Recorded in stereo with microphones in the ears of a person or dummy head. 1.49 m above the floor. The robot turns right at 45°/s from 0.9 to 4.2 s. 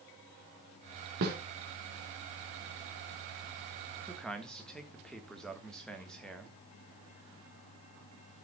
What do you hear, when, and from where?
1.2 s a snare drum: 50° right (ahead or behind), 3 m
4.1 s a man speaking: 5° left (ahead or behind), 1.5 m; by 6.5 s centre (ahead or behind), 1.5 m